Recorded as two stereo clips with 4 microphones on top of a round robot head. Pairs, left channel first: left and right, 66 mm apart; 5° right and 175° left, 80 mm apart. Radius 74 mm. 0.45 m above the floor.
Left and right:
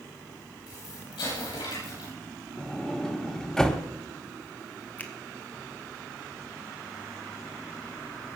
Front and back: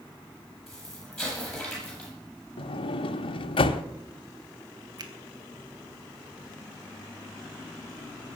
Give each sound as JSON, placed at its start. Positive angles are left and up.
{"t": 0.7, "sound": "an explosion", "azimuth_deg": 80, "distance_m": 9.5}
{"t": 2.6, "sound": "a sliding door", "azimuth_deg": 5, "distance_m": 0.9}
{"t": 5.0, "sound": "a finger snap", "azimuth_deg": 150, "distance_m": 2.0}